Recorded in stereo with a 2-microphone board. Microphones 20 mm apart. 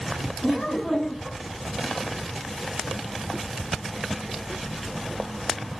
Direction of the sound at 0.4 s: 40° left (ahead or behind).